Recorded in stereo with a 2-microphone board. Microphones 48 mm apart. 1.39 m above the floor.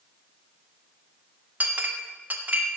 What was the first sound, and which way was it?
A clink, 35° right (ahead or behind).